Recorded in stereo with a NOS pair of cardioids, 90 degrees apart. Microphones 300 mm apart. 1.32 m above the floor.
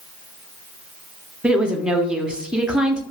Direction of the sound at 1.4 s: 5° right.